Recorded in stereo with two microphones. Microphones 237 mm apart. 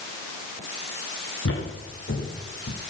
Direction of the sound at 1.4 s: 65° left (ahead or behind).